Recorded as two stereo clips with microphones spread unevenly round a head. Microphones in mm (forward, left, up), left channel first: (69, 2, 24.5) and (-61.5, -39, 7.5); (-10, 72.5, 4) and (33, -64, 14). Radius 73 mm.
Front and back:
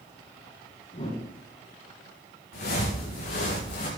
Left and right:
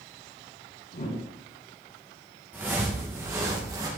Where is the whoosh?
70° left, 2.5 m.